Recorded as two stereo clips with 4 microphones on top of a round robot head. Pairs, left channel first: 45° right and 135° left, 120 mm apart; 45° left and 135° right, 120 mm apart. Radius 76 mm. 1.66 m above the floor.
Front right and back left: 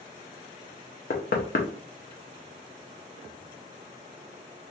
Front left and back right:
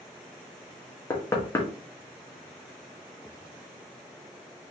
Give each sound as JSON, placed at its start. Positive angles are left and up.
{"t": 1.1, "sound": "knocking", "azimuth_deg": -25, "distance_m": 0.6}